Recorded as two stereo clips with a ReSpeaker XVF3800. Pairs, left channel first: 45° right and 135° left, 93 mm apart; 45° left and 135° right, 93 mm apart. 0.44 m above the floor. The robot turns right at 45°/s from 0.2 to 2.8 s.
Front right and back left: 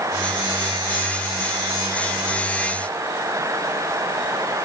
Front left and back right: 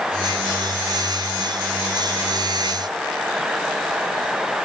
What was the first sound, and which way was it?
Only background noise.